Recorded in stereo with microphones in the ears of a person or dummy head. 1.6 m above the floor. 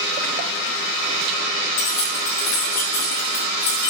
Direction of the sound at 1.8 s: 40° left (ahead or behind).